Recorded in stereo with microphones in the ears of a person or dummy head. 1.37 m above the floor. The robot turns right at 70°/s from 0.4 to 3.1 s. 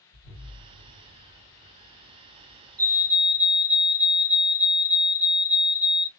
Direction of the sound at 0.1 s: 45° left (ahead or behind).